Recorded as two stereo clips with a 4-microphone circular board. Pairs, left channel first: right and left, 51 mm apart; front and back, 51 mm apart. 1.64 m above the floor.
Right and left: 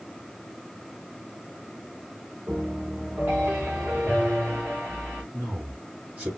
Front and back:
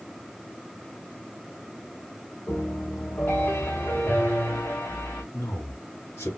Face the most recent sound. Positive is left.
turn(degrees=30)